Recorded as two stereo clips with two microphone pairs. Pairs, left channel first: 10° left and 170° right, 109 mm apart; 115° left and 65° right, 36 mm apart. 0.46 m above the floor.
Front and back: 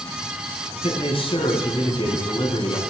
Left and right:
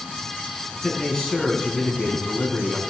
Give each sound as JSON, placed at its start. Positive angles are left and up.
{"t": 0.8, "sound": "a man speaking", "azimuth_deg": 45, "distance_m": 5.0}